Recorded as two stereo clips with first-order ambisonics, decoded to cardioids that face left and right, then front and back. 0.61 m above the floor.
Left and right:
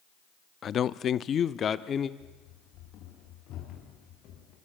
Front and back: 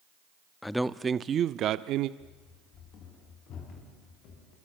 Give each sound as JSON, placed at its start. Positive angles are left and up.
{"t": 0.6, "sound": "a man speaking", "azimuth_deg": 70, "distance_m": 0.6}
{"t": 2.2, "sound": "running footsteps", "azimuth_deg": 50, "distance_m": 6.5}